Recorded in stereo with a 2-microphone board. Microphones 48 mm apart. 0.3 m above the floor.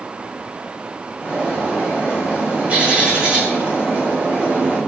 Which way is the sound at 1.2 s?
30° right (ahead or behind).